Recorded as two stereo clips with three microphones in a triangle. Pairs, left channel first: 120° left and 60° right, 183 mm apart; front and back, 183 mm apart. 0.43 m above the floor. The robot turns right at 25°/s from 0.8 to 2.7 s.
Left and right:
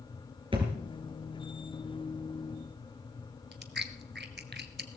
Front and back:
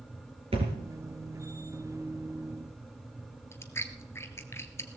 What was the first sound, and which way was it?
A thud, 120° right.